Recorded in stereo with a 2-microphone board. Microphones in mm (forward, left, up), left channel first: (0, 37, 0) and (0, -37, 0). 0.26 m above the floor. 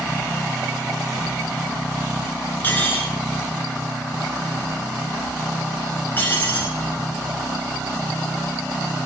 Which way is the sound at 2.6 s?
25° left (ahead or behind).